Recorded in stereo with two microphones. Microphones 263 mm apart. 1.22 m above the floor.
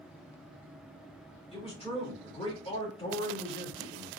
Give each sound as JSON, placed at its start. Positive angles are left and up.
{"t": 1.5, "sound": "a man speaking", "side_deg": 20, "distance_m": 2.5}